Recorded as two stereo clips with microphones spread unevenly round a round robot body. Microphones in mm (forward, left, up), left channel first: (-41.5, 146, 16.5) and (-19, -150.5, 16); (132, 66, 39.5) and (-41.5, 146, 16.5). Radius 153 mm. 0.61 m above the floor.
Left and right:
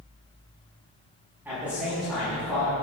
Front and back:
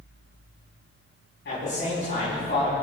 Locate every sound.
1.4 s a man speaking: straight ahead, 6 m; by 2.7 s 10° left, 6 m